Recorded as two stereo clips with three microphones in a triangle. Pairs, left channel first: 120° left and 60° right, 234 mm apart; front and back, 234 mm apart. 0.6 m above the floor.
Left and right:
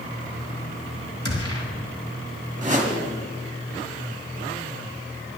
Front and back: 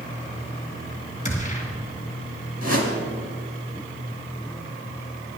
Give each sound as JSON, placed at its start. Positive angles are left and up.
{"t": 1.2, "sound": "a gunshot", "azimuth_deg": -60, "distance_m": 2.5}
{"t": 2.6, "sound": "a whoosh", "azimuth_deg": -5, "distance_m": 2.0}